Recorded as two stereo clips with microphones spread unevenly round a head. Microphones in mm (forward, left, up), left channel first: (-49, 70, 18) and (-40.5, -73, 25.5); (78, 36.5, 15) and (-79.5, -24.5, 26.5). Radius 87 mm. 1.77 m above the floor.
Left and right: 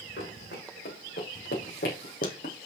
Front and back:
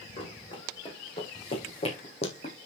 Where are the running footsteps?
80° left, 4 m; by 2.5 s 70° left, 3 m.